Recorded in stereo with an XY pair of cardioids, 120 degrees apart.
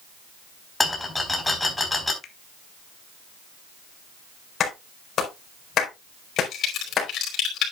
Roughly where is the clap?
Ahead left.